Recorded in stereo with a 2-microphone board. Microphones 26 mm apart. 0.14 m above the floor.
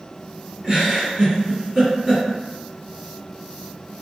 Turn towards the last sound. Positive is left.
turn(degrees=-30)  # may be behind; listen again after turning